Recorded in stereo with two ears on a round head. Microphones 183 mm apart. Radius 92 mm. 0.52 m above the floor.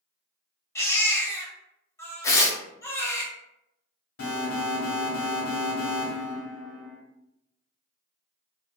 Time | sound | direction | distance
0.8 | a baby crying | 15° left (ahead or behind) | 0.7 m
2.2 | tearing paper | 15° left (ahead or behind) | 0.5 m
4.2 | an alarm | 65° left (ahead or behind) | 1.1 m